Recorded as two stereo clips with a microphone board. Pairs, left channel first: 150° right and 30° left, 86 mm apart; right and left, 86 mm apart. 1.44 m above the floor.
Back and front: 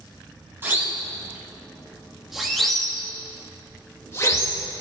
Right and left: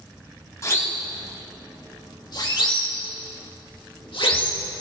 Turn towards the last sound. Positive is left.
turn(degrees=-105)